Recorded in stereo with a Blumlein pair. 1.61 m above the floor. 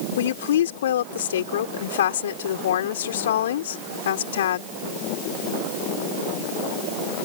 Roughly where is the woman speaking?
Ahead left.